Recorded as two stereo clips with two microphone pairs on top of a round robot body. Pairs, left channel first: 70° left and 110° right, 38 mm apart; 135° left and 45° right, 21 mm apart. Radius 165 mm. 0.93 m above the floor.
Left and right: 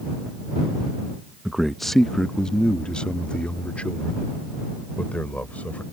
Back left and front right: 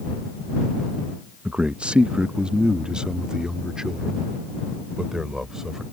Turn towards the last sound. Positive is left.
turn(degrees=20)